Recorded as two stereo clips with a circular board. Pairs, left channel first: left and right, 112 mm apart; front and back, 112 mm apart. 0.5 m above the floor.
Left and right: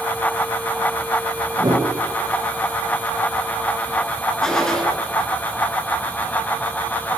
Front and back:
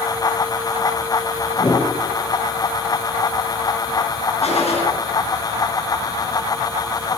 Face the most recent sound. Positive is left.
turn(degrees=5)